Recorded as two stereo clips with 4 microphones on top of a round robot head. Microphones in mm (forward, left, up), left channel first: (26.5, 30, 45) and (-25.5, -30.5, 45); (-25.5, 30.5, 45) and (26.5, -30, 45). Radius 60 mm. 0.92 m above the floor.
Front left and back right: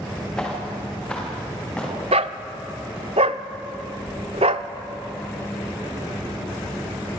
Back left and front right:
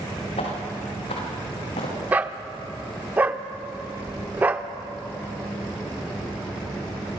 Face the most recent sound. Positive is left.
turn(degrees=-155)